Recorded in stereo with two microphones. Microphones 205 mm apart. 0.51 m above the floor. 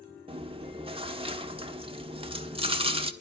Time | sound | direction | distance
0.3 | chewing | 25° right (ahead or behind) | 1.2 m